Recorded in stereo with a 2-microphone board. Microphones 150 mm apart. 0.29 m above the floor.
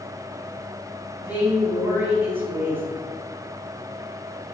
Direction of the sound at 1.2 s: 15° right (ahead or behind).